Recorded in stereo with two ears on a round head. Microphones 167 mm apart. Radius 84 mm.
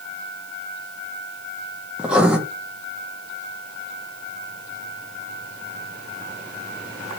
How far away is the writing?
About 0.6 m.